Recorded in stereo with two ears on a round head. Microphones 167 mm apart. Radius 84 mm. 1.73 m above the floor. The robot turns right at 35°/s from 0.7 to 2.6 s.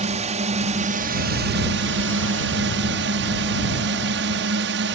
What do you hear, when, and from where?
0.0 s a drone: 140° right; by 5.0 s 75° right